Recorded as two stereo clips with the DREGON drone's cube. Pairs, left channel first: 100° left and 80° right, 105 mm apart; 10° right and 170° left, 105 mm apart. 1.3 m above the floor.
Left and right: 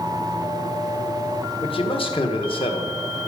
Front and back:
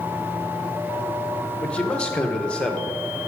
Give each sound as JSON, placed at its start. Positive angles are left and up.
{"t": 1.6, "sound": "a man speaking", "azimuth_deg": 70, "distance_m": 1.4}